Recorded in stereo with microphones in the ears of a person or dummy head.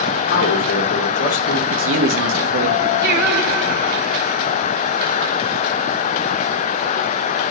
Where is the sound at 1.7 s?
65° right (ahead or behind), 1.4 m.